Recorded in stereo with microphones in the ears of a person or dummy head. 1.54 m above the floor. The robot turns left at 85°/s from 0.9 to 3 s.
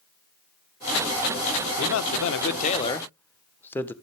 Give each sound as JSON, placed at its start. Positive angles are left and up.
{"t": 1.8, "sound": "a man speaking", "azimuth_deg": 115, "distance_m": 1.2}